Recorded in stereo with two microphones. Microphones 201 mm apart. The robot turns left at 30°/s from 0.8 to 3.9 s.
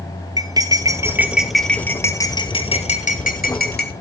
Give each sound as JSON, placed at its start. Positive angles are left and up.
{"t": 0.4, "sound": "cutlery clinking", "side_deg": -20, "distance_m": 1.3}